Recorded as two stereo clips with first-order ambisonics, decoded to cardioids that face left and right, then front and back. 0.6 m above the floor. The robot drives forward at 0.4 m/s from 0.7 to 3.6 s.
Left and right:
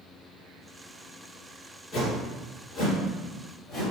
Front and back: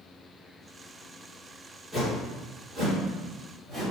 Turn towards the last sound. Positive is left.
turn(degrees=140)